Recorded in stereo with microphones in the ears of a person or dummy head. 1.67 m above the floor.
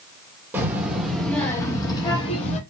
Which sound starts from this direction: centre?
A child speaking, at 0.5 s.